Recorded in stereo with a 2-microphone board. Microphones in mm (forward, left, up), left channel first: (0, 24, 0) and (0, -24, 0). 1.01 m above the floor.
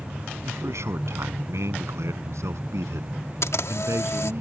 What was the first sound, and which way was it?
A man speaking, 70° right (ahead or behind).